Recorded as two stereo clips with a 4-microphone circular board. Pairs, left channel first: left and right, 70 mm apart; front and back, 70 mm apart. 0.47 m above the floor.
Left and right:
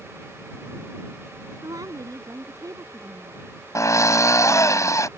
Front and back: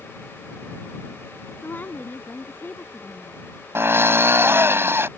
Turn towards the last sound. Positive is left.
turn(degrees=125)